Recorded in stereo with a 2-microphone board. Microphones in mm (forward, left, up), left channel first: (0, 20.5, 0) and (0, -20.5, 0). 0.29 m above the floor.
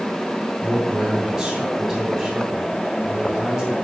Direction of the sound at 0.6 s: 15° right (ahead or behind).